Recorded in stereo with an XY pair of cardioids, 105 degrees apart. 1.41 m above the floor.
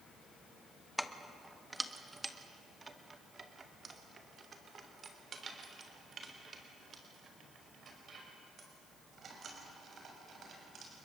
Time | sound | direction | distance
1.0 | keys jangling | 5° left | 1.2 m